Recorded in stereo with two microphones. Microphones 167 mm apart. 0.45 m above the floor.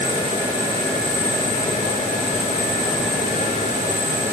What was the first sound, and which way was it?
Only background noise.